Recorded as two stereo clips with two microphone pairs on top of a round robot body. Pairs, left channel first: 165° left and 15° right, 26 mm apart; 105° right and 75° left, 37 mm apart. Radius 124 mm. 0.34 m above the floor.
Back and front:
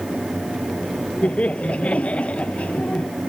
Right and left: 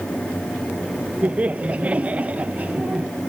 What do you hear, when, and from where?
1.2 s laughter: 135° left